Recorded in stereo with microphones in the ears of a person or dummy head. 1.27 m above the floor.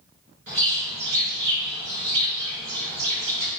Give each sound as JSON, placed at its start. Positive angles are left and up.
{"t": 0.5, "sound": "a bird", "side_deg": -45, "distance_m": 1.8}